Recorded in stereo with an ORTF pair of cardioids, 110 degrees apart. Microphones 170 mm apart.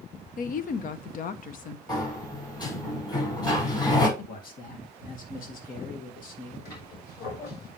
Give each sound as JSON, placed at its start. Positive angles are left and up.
{"t": 0.4, "sound": "a woman speaking", "azimuth_deg": 55, "distance_m": 0.9}
{"t": 1.9, "sound": "a sliding door", "azimuth_deg": 25, "distance_m": 5.5}
{"t": 4.2, "sound": "a man speaking", "azimuth_deg": 55, "distance_m": 2.0}
{"t": 6.7, "sound": "a squeak", "azimuth_deg": 60, "distance_m": 4.5}